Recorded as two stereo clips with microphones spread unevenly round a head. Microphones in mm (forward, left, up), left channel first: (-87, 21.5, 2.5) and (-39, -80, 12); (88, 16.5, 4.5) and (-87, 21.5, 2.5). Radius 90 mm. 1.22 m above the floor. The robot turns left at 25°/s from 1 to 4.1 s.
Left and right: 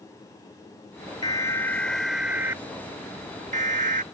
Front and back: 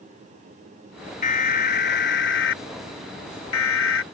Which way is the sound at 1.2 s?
45° left.